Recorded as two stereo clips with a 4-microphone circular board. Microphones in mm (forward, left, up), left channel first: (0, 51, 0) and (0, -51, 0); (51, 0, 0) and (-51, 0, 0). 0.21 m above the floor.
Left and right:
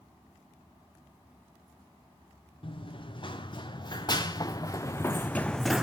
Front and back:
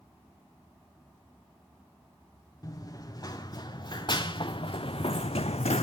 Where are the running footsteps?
55° left, 2.0 m; by 5.8 s 5° right, 0.6 m.